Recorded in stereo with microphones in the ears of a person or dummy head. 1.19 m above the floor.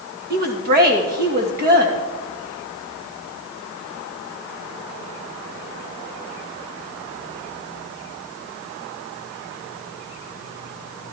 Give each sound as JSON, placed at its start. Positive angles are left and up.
{"t": 0.3, "sound": "a woman speaking", "side_deg": -45, "distance_m": 1.8}